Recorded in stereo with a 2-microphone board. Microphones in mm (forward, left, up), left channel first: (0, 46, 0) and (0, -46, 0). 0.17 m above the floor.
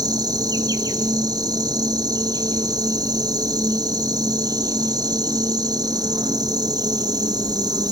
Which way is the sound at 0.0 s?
45° right (ahead or behind).